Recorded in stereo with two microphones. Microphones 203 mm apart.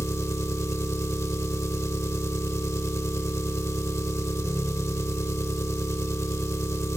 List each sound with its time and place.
0.0 s an engine running: 15° left (ahead or behind), 0.8 m